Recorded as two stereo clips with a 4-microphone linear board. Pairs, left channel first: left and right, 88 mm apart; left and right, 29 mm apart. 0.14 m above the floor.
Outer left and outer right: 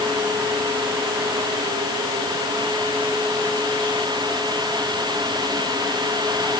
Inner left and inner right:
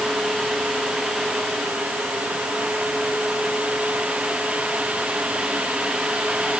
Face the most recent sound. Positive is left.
No sound to turn to.